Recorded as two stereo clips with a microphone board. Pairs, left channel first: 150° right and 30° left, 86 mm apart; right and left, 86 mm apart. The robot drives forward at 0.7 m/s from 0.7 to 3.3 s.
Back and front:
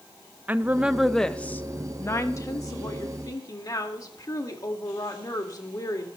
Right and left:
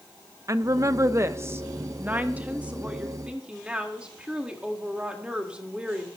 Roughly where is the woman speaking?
Left.